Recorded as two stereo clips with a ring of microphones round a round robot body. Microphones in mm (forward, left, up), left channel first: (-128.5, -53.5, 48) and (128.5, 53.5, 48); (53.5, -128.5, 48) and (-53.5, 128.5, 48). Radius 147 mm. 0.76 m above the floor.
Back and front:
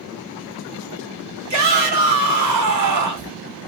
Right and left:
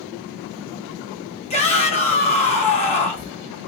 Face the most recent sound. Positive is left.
turn(degrees=0)